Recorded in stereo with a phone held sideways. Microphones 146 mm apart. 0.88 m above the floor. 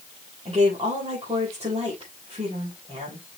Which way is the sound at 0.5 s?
40° right (ahead or behind).